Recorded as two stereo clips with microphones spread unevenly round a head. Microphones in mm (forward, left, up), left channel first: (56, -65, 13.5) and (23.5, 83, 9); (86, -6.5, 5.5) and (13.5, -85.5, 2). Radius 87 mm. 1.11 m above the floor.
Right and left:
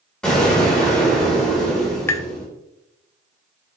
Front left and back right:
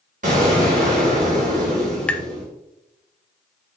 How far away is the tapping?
About 0.7 m.